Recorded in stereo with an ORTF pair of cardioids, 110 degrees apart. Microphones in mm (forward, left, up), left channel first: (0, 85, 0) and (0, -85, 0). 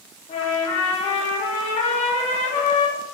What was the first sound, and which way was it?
A trumpet, 40° left.